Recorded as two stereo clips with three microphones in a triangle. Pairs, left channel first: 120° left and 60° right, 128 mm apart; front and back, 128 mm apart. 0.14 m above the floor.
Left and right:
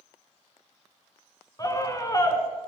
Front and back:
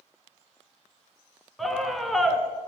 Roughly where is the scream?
Left.